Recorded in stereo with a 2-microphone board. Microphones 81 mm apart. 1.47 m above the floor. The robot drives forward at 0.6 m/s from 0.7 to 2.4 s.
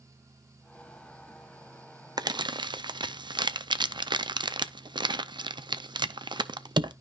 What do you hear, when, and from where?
2.2 s crumpling: 55° right (ahead or behind), 0.5 m; by 6.9 s 65° right (ahead or behind), 0.5 m